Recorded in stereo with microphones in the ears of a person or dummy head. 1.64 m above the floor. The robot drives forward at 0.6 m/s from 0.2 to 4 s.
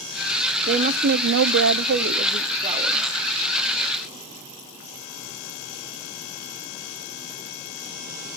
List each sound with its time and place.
0.7 s a woman speaking: 45° right (ahead or behind), 0.7 m; by 3.1 s 25° right (ahead or behind), 1.2 m